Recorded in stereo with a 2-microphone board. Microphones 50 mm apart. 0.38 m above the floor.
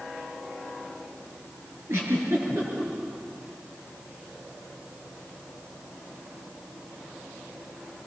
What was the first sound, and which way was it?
A giggle, 60° right (ahead or behind).